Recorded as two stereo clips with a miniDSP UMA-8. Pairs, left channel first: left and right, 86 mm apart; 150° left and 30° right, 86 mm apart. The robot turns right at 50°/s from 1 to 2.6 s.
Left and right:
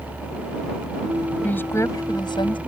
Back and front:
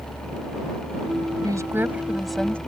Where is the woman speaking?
15° left; by 2.6 s 75° left.